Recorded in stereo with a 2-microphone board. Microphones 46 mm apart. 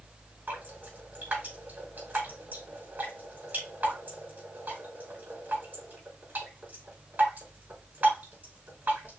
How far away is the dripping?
About 4 m.